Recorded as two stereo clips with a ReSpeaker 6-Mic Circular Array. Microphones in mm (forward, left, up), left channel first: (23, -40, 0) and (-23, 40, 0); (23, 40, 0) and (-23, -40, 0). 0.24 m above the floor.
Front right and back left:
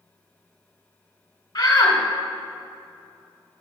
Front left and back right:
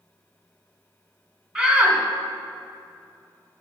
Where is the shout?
40° right, 1.7 m.